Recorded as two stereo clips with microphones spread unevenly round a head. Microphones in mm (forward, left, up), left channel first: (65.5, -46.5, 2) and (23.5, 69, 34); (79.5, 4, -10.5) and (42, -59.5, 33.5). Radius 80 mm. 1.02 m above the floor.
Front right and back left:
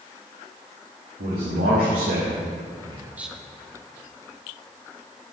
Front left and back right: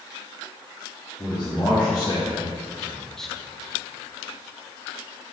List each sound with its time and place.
1.2 s a man speaking: 120° left, 2 m; by 3.3 s 5° left, 0.7 m